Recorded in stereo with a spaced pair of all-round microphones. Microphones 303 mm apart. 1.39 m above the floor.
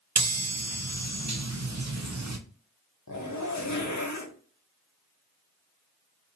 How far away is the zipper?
About 0.7 m.